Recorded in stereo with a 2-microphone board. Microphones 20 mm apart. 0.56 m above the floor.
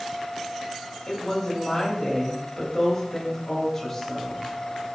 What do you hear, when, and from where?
1.1 s a woman speaking: 20° left (ahead or behind), 3 m